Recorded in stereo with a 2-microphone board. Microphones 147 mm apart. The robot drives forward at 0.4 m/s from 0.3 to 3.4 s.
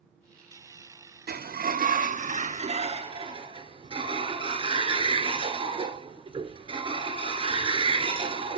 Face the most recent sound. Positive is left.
turn(degrees=-35)  # may be behind; listen again after turning